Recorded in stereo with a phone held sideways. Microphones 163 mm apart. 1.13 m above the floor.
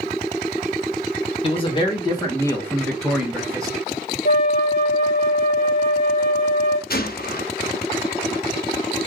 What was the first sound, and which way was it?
A man speaking, 35° left (ahead or behind).